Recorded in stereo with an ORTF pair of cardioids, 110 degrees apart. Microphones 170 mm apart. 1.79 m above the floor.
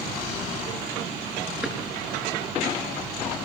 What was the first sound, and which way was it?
A drawer, 5° right.